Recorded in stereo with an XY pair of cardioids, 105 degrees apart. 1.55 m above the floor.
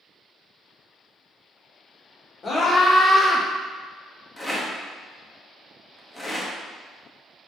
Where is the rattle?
10° left, 0.8 m.